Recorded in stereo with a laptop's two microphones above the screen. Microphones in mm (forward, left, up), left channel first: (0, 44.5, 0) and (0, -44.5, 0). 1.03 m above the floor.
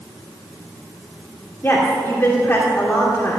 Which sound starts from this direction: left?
A woman speaking, at 1.6 s.